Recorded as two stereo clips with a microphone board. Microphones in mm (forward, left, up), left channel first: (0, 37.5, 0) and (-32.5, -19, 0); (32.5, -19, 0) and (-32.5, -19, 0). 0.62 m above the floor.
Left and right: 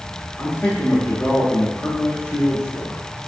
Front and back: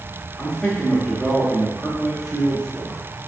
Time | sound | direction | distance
0.4 | a man speaking | 70° left | 0.8 m